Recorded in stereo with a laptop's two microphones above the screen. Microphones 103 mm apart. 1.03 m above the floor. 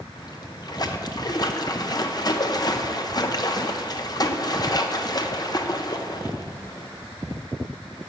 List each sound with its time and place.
0.1 s a splash: 40° left (ahead or behind), 0.7 m